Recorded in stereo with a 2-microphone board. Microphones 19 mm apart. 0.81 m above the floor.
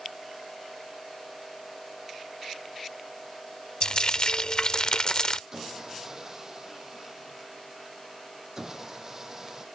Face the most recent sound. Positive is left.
turn(degrees=-20)  # may be behind; listen again after turning